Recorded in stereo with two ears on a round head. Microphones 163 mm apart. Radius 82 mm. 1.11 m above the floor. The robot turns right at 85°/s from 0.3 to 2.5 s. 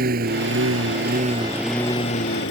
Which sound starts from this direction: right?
A lawn mower, at 0.0 s.